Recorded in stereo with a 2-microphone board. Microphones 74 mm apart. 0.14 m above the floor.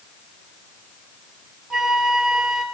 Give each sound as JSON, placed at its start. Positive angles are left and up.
{"t": 1.7, "sound": "a flute", "side_deg": -5, "distance_m": 2.5}